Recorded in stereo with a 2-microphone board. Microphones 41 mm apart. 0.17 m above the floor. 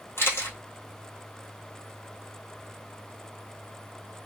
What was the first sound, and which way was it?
A camera shutter, 75° left (ahead or behind).